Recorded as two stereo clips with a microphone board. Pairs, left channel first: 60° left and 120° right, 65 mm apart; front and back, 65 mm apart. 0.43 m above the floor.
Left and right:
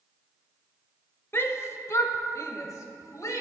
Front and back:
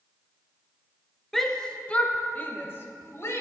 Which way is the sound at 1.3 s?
85° left.